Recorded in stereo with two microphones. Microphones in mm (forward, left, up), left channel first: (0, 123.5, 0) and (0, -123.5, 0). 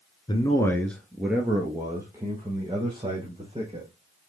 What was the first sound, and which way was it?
A man speaking, 20° left (ahead or behind).